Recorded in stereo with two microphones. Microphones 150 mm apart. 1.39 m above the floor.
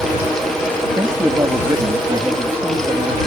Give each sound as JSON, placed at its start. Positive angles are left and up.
{"t": 1.0, "sound": "a man speaking", "side_deg": -25}